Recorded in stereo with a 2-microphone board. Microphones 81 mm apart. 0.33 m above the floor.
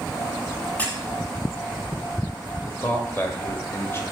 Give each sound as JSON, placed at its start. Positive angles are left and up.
{"t": 0.8, "sound": "a squeak", "side_deg": 20, "distance_m": 1.5}
{"t": 2.7, "sound": "a man speaking", "side_deg": 30, "distance_m": 1.0}